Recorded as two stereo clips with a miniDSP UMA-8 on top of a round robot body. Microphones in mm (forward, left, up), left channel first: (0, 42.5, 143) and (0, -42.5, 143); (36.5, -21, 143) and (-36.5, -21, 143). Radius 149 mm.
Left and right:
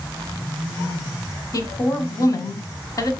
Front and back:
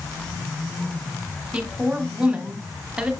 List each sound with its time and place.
1.5 s a woman speaking: 105° left, 1.8 m